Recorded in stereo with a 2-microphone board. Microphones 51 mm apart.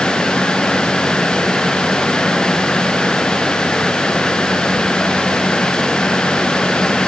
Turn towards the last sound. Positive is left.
No sound to turn to.